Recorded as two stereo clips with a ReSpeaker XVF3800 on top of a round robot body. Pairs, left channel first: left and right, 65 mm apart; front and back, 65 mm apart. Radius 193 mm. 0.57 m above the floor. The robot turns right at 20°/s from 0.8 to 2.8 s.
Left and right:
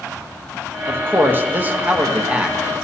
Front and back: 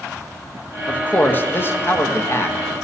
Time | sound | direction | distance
0.9 | a man speaking | 55° right | 1.1 m